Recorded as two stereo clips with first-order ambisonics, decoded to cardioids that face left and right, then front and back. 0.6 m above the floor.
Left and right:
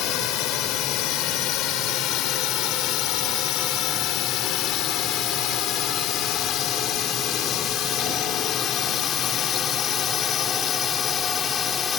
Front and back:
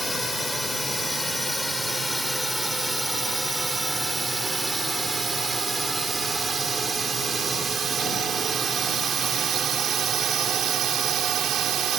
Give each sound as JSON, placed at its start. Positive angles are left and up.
{"t": 0.0, "sound": "a drone", "azimuth_deg": 85}